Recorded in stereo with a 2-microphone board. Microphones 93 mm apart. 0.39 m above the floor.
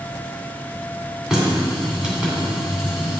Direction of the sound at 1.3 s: 10° right (ahead or behind).